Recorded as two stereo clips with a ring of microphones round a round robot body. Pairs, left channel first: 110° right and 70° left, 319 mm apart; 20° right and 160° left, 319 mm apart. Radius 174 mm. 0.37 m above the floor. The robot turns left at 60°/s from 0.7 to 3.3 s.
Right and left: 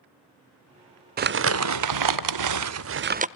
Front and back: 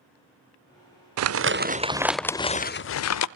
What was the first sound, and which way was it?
Crumpling, 125° left.